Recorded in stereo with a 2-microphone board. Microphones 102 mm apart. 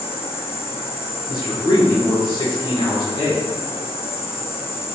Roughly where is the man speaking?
Left.